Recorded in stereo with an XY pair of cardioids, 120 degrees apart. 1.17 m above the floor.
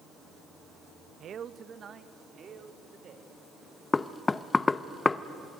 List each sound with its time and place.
1.2 s a man speaking: 50° right, 0.9 m; by 3.3 s 45° right, 4 m
3.9 s knocking: 20° left, 0.6 m